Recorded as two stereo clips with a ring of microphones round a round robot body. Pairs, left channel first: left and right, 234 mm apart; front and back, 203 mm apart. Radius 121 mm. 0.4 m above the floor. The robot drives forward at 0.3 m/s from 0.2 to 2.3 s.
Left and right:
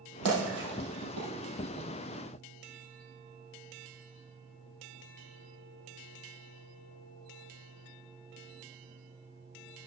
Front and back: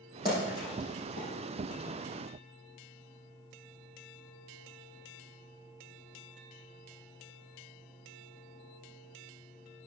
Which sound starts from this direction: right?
A splash, at 0.2 s.